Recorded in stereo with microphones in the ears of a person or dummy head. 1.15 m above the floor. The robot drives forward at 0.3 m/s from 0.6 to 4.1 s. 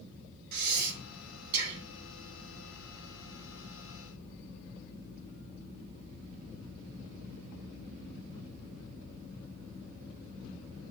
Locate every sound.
0.5 s breathing: 55° right (ahead or behind), 2.5 m; by 1.9 s 65° right (ahead or behind), 2 m